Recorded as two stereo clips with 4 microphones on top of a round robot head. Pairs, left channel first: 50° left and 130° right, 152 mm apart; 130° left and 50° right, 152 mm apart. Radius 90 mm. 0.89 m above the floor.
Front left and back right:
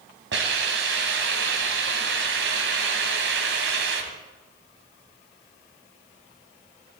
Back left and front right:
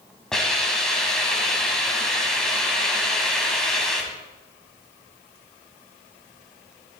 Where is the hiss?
140° right, 1.8 m.